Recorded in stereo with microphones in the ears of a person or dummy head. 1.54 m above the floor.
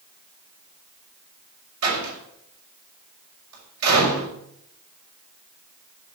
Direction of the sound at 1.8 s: 85° right.